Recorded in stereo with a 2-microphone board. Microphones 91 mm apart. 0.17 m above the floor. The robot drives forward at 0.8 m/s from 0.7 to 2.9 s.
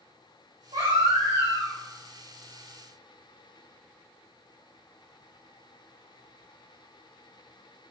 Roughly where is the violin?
No violin in this recording.